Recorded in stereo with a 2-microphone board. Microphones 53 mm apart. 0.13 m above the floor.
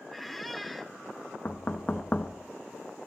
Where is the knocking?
25° left (ahead or behind), 0.9 m.